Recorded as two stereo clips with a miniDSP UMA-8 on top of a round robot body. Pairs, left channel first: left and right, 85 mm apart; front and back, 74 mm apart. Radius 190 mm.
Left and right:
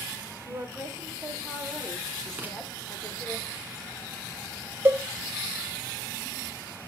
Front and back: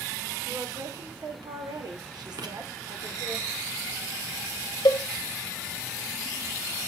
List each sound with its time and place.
0.5 s a woman speaking: 150° right, 4 m; by 3.4 s 150° left, 4 m
2.4 s writing: 160° right, 2.5 m
4.8 s a cowbell: 20° right, 0.8 m